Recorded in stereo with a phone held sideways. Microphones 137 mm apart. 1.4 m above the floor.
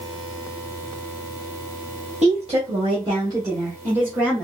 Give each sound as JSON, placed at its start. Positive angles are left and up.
{"t": 2.2, "sound": "a woman speaking", "side_deg": -55, "distance_m": 1.4}